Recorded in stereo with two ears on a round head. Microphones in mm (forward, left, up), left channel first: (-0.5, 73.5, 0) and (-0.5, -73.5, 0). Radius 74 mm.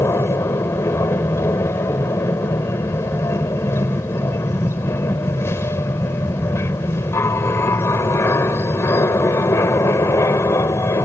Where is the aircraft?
15° left (ahead or behind).